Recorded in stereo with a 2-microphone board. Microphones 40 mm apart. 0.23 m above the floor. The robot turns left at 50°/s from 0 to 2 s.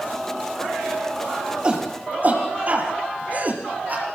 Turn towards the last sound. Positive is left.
turn(degrees=-40)  # may be behind; listen again after turning